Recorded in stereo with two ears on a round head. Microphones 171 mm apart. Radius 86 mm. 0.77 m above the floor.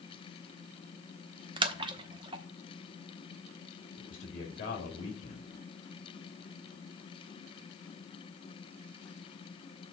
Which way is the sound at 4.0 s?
40° left (ahead or behind).